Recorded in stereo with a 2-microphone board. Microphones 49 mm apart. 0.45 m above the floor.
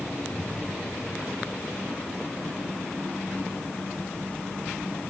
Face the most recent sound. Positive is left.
turn(degrees=10)  # may be behind; listen again after turning